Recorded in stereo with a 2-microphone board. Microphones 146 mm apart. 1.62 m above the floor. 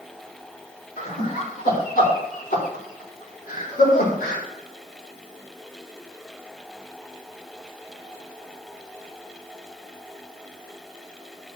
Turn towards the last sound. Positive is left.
turn(degrees=75)  # may be behind; listen again after turning